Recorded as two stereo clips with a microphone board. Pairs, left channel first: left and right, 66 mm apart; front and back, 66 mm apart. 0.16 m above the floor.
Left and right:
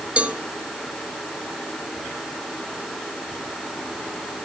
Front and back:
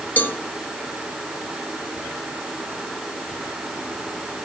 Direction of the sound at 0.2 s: 35° right.